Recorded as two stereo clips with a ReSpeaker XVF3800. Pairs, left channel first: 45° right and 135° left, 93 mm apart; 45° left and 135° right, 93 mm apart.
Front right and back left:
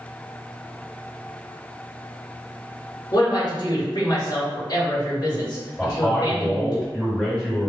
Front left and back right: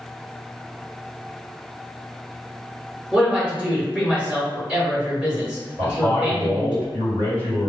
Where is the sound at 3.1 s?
60° right, 1.1 m.